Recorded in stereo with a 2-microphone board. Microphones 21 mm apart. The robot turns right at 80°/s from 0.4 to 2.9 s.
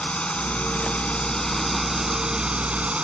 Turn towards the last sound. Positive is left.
turn(degrees=-95)